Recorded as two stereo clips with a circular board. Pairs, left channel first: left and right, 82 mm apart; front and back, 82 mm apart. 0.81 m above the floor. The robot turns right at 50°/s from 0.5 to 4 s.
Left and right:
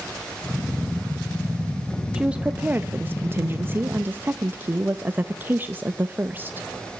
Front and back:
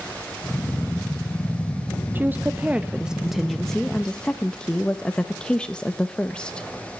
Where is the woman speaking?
155° right, 0.6 m; by 6.7 s 65° right, 0.6 m.